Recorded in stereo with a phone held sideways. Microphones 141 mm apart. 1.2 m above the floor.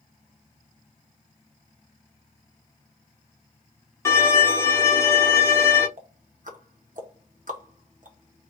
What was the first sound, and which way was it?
A violin, 20° left (ahead or behind).